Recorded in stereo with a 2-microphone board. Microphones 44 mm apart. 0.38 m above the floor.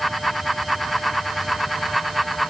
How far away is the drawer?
No drawer in this recording.